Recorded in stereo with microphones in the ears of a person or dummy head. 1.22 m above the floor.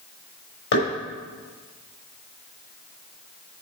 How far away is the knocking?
About 5 m.